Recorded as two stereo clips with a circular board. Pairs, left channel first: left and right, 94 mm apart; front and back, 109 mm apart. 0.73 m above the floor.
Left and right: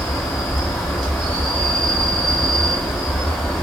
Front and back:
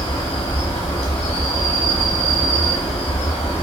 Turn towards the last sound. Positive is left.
turn(degrees=5)